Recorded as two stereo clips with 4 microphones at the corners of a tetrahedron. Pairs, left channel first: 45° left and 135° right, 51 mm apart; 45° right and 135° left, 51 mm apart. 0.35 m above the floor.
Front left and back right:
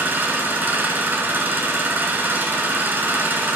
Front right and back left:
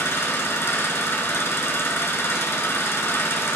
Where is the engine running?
85° right, 1.7 m.